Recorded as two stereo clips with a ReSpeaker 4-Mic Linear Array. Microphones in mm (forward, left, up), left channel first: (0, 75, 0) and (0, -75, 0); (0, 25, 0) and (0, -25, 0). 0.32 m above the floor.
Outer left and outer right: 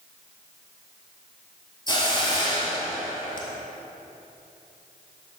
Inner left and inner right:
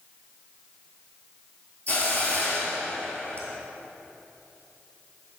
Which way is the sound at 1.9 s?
30° left (ahead or behind).